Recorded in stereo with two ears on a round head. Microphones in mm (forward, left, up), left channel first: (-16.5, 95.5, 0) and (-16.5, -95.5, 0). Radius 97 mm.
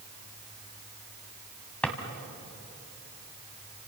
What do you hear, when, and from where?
1.8 s a drawer: 5° left (ahead or behind), 2 m